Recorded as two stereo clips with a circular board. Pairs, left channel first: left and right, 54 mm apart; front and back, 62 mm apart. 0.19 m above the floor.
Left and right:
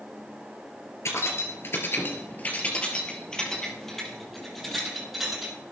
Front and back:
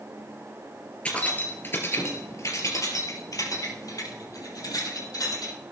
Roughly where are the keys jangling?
Left.